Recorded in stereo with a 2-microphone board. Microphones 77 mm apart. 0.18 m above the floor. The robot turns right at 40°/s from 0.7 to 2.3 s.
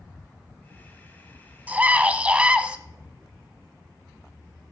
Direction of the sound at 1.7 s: 20° right (ahead or behind).